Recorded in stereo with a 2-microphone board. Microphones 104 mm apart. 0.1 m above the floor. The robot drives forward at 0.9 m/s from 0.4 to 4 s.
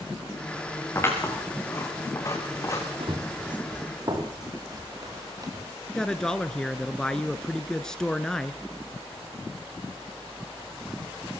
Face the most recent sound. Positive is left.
turn(degrees=5)  # may be behind; listen again after turning